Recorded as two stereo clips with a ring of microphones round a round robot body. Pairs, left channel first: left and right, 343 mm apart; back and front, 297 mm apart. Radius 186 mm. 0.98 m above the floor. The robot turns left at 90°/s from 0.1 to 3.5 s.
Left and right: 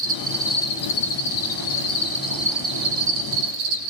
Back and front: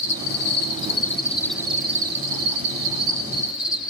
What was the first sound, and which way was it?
An insect, 140° right.